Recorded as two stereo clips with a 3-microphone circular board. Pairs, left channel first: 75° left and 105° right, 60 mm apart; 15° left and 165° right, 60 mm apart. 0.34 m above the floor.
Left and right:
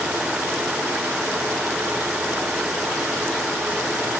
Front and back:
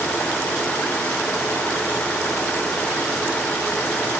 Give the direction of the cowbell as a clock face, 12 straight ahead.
No cowbell in this recording.